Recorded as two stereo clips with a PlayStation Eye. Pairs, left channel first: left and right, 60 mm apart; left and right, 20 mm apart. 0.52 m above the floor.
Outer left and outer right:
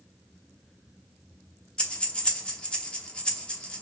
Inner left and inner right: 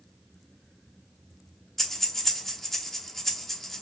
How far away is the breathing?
About 0.8 m.